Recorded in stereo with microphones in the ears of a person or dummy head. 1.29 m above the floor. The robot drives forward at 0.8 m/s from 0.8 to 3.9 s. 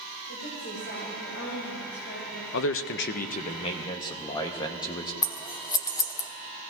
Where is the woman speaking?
70° left (ahead or behind), 4.5 m; by 2.4 s 60° left (ahead or behind), 5 m.